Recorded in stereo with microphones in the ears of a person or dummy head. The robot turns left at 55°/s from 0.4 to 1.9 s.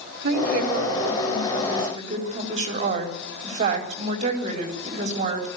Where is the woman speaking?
65° right, 4 m; by 5.5 s 150° right, 4 m.